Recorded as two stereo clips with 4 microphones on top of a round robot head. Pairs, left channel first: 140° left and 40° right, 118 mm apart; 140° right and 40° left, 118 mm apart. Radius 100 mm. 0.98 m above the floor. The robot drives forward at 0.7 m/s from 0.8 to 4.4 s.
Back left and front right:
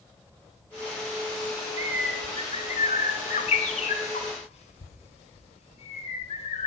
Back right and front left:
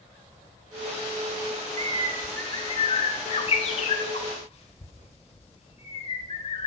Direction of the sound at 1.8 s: 15° left.